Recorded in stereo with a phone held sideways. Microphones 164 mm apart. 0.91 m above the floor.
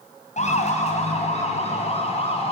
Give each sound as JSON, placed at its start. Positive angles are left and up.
{"t": 0.4, "sound": "a siren", "side_deg": 45, "distance_m": 5.0}